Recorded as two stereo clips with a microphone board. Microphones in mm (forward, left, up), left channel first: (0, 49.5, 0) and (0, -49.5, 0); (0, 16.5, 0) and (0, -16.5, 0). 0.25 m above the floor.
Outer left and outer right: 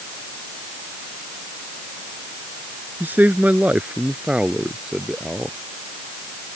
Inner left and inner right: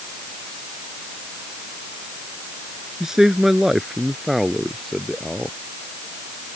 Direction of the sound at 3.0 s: 20° right (ahead or behind).